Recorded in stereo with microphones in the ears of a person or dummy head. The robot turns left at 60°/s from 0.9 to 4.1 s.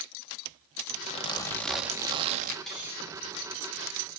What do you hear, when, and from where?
1.0 s a zipper: 40° left, 1.8 m; by 2.6 s 50° right, 1.8 m
2.7 s cutlery clinking: centre (ahead or behind), 10 m; by 4.0 s 75° right (ahead or behind), 10 m